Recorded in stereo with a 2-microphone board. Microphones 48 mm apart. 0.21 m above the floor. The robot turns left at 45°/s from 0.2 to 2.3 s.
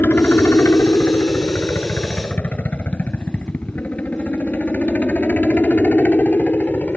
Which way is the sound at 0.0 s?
45° left (ahead or behind).